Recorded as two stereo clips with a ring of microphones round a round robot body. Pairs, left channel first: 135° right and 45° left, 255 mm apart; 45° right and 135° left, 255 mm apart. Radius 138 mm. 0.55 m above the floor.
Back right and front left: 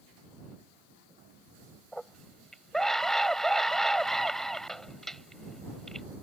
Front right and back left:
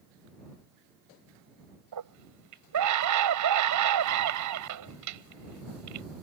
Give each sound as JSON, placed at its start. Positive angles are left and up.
{"t": 1.9, "sound": "a scream", "azimuth_deg": 135}